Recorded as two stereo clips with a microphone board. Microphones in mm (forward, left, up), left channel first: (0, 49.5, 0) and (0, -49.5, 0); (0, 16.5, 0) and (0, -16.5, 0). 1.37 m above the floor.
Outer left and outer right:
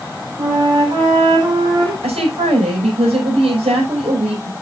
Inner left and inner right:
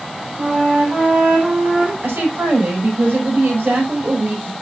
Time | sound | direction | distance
0.4 | a flute | 45° right (ahead or behind) | 4 m
2.0 | a woman speaking | 85° right | 6 m